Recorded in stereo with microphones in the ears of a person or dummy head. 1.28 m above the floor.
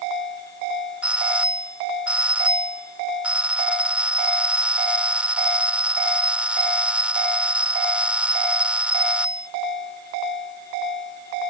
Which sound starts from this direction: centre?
A doorbell, at 1.0 s.